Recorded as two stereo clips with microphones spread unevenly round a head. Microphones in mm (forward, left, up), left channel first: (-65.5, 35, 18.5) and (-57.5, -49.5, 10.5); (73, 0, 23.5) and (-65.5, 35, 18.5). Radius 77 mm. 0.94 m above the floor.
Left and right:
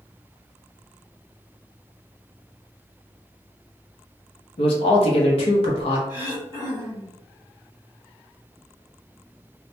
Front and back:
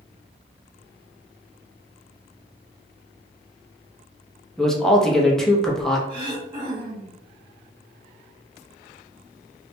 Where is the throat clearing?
120° left, 1.2 m.